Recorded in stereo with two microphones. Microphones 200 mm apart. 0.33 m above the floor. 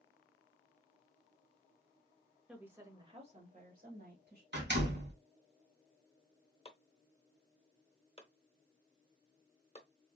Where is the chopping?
30° left (ahead or behind), 1.0 m.